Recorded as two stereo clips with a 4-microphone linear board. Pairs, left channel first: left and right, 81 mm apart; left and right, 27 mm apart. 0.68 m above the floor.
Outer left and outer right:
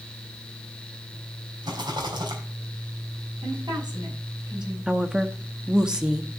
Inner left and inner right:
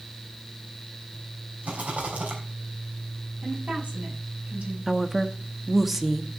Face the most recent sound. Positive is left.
turn(degrees=-10)  # may be behind; listen again after turning